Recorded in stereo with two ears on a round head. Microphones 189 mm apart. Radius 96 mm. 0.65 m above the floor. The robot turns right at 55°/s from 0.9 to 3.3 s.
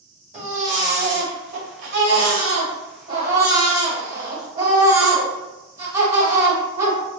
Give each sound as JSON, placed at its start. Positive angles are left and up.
{"t": 0.3, "sound": "a baby crying", "azimuth_deg": -145, "distance_m": 1.1}